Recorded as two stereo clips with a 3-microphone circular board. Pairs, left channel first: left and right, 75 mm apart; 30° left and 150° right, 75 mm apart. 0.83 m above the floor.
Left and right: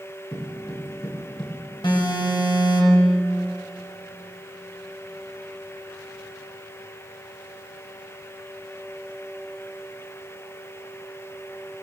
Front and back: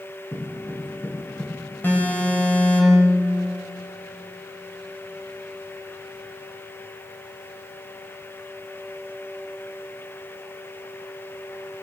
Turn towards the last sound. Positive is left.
turn(degrees=95)